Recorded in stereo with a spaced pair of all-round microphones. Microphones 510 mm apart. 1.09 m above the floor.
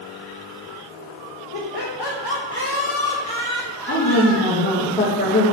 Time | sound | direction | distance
1.5 | laughter | 55° left (ahead or behind) | 1.2 m
3.9 | a woman speaking | 15° left (ahead or behind) | 1.5 m